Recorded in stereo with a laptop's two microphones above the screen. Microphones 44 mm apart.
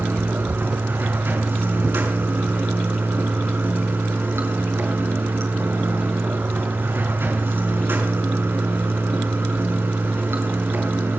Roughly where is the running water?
Right.